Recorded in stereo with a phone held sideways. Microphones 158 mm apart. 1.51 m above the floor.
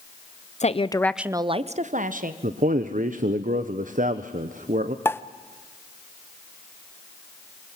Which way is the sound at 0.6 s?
50° left (ahead or behind).